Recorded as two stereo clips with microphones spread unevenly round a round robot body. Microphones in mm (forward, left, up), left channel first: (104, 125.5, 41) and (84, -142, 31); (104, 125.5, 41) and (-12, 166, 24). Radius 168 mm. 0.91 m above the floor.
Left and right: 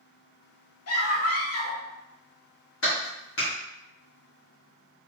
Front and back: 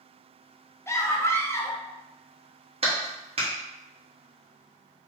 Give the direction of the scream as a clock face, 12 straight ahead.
10 o'clock.